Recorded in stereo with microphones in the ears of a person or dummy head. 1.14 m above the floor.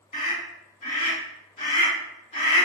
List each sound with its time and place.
0.1 s a scream: 30° left (ahead or behind), 1.8 m